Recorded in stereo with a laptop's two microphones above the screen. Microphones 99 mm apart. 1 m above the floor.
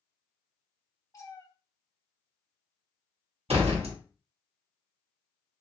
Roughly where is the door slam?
Right.